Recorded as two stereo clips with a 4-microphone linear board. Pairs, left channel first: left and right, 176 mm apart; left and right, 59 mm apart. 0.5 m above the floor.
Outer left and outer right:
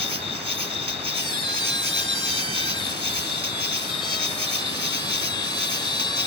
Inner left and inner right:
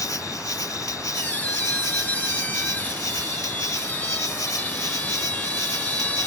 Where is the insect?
75° left (ahead or behind).